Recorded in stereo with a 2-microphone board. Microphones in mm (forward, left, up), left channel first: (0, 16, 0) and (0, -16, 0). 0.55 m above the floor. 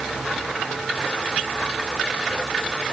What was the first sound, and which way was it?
Only background noise.